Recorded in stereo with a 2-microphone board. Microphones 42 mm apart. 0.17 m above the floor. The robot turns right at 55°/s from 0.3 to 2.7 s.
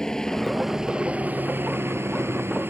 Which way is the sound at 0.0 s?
165° left.